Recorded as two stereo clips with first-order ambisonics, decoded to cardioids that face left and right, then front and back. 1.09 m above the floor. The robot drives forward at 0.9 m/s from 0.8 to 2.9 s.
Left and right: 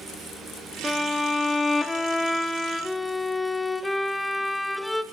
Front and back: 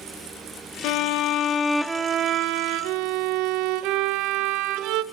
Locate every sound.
0.8 s a violin: 5° left, 1.0 m; by 5.0 s 175° left, 1.1 m